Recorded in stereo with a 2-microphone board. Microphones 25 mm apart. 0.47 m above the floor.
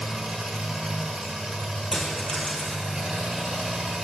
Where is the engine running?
40° right (ahead or behind), 2.5 m.